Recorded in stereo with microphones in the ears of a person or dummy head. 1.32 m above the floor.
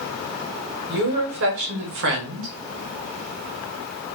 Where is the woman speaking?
70° right (ahead or behind), 1.6 m.